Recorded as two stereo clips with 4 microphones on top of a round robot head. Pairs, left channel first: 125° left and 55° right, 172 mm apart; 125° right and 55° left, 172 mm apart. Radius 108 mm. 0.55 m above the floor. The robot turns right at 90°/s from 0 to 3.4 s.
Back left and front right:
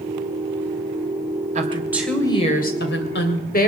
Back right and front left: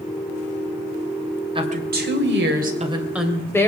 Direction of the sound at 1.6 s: 10° right.